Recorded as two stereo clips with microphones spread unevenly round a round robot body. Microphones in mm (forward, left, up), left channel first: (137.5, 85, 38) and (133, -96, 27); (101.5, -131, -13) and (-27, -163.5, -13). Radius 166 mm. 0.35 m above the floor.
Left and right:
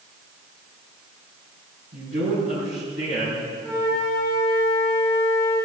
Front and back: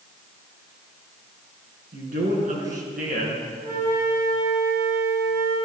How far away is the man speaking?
About 4.5 m.